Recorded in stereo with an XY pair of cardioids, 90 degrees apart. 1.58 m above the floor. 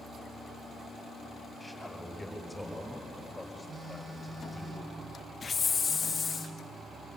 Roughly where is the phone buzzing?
Ahead right.